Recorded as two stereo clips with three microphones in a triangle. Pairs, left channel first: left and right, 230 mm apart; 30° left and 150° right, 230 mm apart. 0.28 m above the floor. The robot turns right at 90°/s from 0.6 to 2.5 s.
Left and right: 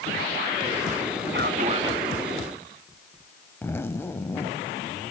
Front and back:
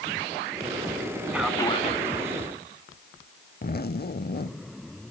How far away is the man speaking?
About 2.5 m.